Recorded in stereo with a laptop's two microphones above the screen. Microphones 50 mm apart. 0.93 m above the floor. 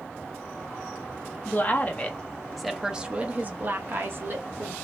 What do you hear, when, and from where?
1.4 s a woman speaking: 45° left (ahead or behind), 1.0 m; by 4.8 s 60° right (ahead or behind), 1.4 m